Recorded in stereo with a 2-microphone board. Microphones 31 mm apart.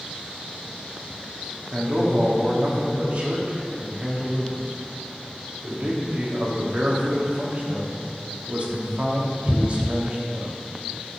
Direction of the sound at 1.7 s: 40° right (ahead or behind).